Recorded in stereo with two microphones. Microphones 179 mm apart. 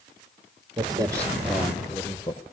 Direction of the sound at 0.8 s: 25° right (ahead or behind).